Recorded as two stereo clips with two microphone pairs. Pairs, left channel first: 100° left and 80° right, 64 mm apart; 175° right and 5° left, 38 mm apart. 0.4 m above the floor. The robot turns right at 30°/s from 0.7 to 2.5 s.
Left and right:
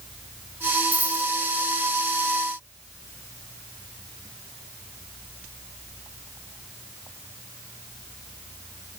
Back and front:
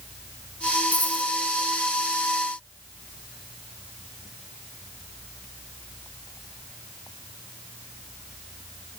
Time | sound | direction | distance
0.9 | a dropped coin | 150° right | 1.5 m